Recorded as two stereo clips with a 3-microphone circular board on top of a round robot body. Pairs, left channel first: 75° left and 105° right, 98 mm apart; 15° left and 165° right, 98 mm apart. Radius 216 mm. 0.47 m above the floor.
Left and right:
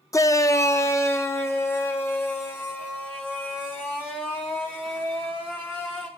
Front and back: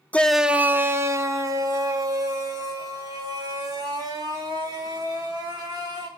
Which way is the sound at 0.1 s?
80° left.